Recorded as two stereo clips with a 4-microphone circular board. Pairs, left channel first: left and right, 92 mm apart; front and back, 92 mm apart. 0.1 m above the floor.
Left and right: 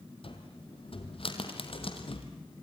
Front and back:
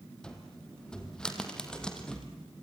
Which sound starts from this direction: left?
A cupboard door, at 0.2 s.